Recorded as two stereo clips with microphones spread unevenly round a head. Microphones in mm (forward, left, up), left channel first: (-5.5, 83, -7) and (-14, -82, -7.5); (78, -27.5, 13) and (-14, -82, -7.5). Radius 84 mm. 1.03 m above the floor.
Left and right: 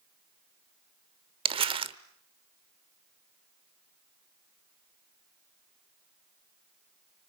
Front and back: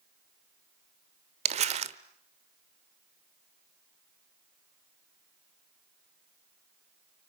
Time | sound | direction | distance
1.4 | crumpling | 145° right | 1.0 m